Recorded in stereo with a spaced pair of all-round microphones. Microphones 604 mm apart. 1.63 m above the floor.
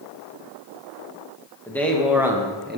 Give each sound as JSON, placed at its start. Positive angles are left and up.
{"t": 1.7, "sound": "a man speaking", "side_deg": 5, "distance_m": 2.5}